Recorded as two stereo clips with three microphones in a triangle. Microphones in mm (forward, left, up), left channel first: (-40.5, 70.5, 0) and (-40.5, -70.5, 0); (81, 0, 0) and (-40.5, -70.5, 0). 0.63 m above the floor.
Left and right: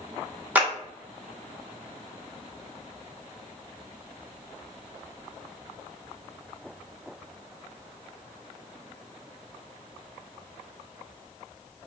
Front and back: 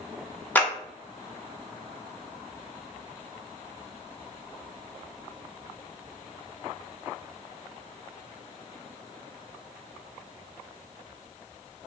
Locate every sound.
0.6 s a clap: 30° right, 0.7 m